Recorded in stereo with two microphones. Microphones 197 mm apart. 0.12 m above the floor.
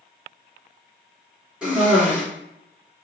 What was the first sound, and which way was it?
A cough, 5° right (ahead or behind).